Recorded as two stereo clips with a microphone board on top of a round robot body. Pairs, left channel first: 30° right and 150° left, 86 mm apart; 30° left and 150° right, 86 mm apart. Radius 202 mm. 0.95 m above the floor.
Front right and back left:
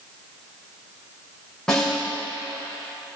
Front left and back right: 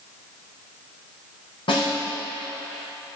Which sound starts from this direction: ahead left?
A snare drum, at 1.7 s.